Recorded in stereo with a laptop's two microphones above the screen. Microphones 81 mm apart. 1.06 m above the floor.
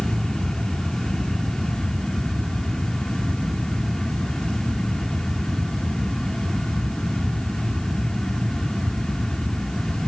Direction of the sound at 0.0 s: 5° left (ahead or behind).